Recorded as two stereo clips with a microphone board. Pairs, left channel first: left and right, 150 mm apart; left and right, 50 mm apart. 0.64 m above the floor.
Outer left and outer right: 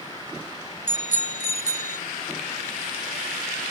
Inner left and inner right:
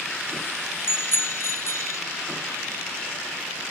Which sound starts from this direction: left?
A bicycle bell, at 0.9 s.